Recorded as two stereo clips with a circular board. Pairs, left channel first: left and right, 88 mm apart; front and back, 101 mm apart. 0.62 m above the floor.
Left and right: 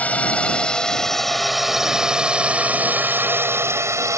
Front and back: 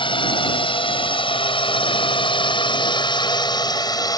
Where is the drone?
20° left; by 4.2 s 40° right.